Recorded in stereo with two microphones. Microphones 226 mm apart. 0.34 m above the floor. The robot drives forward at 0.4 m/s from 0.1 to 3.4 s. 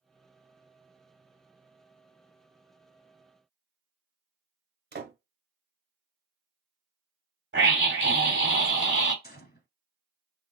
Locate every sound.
4.9 s a door slam: 50° right (ahead or behind), 0.8 m
7.5 s a scream: 55° right (ahead or behind), 2 m
9.2 s a gunshot: 45° left (ahead or behind), 0.7 m